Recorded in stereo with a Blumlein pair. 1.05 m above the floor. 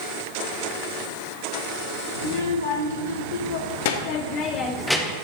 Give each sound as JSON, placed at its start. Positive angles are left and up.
{"t": 2.2, "sound": "a child speaking", "azimuth_deg": 70, "distance_m": 1.8}